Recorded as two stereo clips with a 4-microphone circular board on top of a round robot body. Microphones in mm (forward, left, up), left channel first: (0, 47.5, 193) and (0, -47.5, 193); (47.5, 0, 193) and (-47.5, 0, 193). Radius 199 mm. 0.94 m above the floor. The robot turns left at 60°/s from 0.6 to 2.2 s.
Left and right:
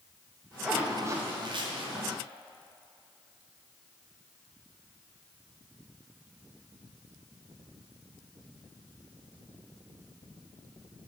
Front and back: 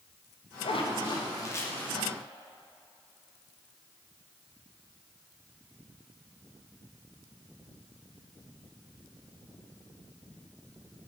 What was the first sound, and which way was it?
A zipper, 5° right.